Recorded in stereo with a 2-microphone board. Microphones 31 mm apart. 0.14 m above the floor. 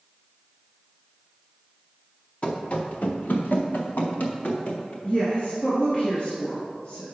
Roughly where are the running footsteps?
Left.